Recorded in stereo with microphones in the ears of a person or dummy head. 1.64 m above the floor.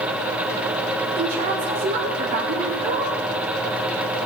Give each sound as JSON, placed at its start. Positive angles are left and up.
{"t": 1.2, "sound": "a woman speaking", "side_deg": -45, "distance_m": 1.7}